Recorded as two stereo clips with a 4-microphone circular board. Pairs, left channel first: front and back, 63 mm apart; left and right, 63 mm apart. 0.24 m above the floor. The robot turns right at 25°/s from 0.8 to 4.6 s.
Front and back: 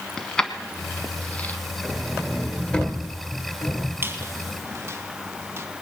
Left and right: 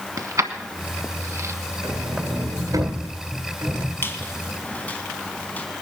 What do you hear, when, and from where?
0.2 s keys jangling: 80° right, 1.2 m; by 1.6 s 60° right, 1.2 m
1.8 s a sliding door: 95° right, 1.7 m; by 3.9 s 45° right, 1.7 m
4.0 s a squeak: 135° left, 1.4 m; by 5.7 s 150° left, 1.4 m